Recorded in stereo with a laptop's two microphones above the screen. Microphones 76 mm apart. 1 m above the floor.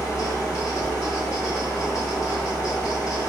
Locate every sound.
0.0 s a fan: 35° left (ahead or behind), 1.7 m